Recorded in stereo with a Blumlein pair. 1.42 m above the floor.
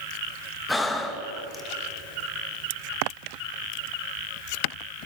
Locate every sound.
0.7 s breathing: 10° left, 2.5 m